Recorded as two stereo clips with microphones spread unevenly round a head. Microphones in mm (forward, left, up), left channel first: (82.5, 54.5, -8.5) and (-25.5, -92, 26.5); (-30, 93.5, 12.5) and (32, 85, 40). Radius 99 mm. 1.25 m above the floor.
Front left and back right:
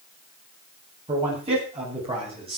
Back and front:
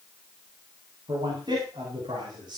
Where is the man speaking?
70° right, 8.5 m.